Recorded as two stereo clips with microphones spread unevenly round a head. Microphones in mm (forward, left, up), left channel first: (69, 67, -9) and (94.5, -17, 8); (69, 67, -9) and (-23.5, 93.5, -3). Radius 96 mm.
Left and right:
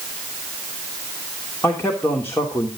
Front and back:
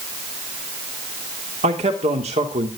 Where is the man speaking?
Straight behind, 2.5 m.